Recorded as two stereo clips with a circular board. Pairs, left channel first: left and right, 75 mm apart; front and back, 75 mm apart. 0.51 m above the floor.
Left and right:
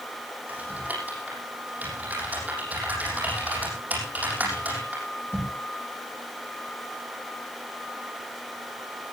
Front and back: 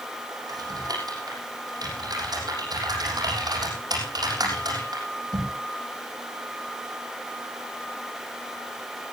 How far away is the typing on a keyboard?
About 7 m.